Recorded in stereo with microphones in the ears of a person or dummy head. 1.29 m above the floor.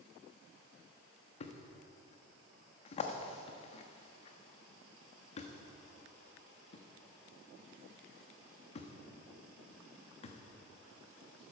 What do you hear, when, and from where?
1.4 s a thud: 35° left (ahead or behind), 1.0 m